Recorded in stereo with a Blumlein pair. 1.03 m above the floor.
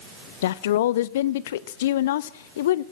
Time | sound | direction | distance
0.4 | a woman speaking | 55° left | 0.6 m